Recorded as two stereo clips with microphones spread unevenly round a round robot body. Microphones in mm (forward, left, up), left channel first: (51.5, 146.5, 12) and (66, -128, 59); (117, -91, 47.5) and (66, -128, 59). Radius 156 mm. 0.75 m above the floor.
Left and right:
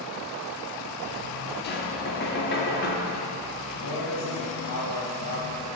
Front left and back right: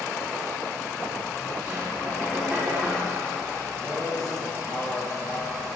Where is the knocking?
140° left, 1.5 m.